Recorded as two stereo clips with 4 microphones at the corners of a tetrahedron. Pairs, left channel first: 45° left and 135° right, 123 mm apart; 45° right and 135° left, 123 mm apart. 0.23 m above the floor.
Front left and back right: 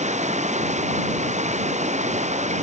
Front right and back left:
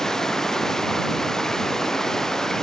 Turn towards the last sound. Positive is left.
turn(degrees=-130)